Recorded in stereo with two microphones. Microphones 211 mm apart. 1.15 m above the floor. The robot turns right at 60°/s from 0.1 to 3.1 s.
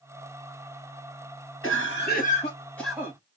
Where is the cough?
105° left, 1.6 m; by 3.2 s 165° right, 1.6 m.